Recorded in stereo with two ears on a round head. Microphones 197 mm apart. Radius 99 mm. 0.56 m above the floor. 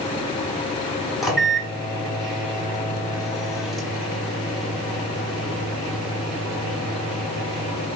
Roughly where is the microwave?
Centre.